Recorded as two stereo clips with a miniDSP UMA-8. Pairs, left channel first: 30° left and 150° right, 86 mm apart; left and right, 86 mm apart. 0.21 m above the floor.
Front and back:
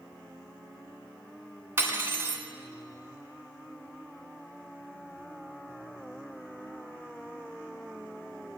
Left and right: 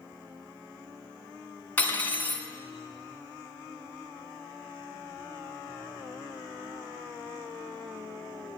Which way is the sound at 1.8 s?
155° left.